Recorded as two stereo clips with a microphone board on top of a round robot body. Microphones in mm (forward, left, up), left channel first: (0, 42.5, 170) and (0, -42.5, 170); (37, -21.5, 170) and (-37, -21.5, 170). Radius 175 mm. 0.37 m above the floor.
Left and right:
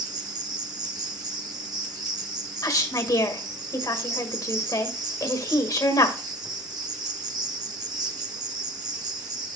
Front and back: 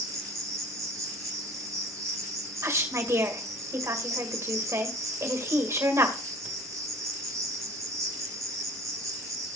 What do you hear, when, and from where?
0.0 s an insect: 130° right, 1.5 m
2.6 s a woman speaking: 130° left, 2.0 m